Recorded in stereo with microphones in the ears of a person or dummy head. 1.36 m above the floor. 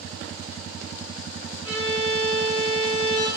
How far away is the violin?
About 1.4 m.